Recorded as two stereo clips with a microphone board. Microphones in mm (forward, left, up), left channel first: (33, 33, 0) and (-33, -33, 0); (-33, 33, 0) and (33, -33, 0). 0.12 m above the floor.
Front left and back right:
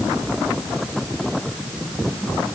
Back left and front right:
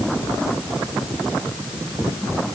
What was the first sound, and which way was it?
Only background noise.